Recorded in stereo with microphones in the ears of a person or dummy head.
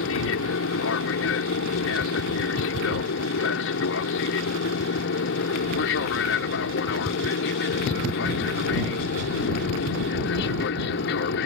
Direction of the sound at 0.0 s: 65° left (ahead or behind).